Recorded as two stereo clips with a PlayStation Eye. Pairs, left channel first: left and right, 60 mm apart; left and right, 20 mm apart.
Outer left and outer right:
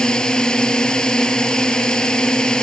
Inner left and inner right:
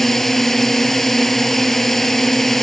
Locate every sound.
0.0 s a drone: 10° left (ahead or behind)